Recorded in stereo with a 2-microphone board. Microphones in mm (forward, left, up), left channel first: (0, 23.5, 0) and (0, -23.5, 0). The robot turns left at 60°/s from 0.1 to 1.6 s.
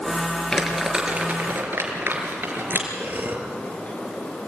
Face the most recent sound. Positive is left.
turn(degrees=-50)  # may be behind; listen again after turning